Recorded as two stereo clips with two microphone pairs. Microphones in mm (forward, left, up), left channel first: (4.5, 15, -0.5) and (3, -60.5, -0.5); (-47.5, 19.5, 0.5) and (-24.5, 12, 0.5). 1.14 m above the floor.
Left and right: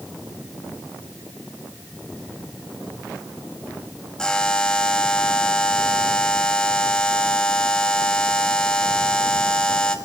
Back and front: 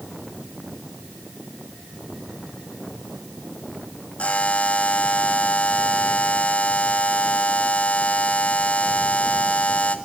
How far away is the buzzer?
About 2.5 m.